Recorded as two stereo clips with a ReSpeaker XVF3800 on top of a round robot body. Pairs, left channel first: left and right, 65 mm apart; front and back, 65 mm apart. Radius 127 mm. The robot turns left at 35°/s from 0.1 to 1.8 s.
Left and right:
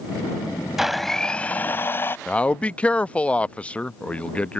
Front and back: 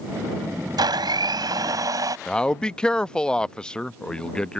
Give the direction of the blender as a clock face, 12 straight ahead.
6 o'clock.